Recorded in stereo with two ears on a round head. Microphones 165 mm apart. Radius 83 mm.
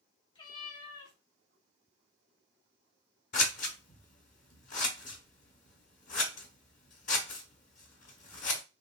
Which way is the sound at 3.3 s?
40° left (ahead or behind).